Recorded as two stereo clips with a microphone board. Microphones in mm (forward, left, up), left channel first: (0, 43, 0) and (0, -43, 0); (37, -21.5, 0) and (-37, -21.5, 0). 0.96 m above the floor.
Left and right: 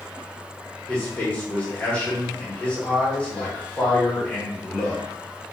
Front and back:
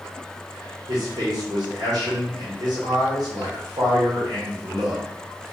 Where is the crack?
No crack in this recording.